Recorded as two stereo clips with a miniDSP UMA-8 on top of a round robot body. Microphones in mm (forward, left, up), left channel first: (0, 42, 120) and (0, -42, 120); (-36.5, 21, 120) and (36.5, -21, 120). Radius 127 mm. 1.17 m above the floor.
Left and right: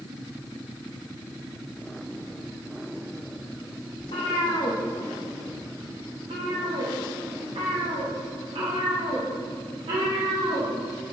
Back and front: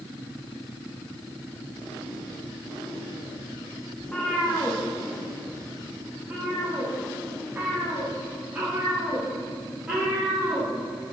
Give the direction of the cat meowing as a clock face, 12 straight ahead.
10 o'clock.